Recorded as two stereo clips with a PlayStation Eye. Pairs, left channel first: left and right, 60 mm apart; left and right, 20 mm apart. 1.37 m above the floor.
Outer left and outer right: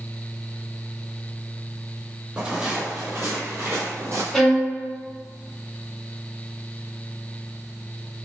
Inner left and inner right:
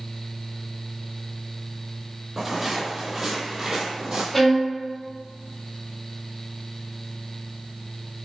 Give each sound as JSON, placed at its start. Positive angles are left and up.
{"t": 2.4, "sound": "footsteps", "side_deg": -15, "distance_m": 1.6}
{"t": 4.3, "sound": "a violin", "side_deg": 5, "distance_m": 1.5}